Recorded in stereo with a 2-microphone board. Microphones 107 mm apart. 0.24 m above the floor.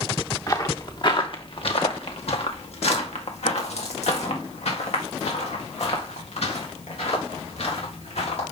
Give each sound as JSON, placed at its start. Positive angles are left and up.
{"t": 0.5, "sound": "footsteps", "side_deg": 35, "distance_m": 1.3}